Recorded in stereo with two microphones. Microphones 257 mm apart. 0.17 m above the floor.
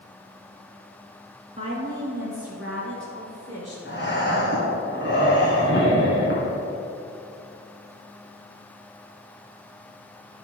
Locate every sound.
1.6 s a woman speaking: 20° right (ahead or behind), 2 m; by 3.8 s 15° left (ahead or behind), 2.5 m
3.9 s breathing: 45° left (ahead or behind), 2.5 m